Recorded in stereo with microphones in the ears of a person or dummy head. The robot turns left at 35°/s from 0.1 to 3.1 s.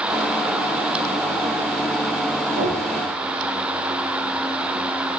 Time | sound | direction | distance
2.5 | knocking | 60° right (ahead or behind) | 2 m